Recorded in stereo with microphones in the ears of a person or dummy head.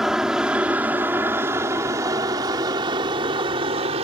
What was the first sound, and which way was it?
An aircraft, 5° right (ahead or behind).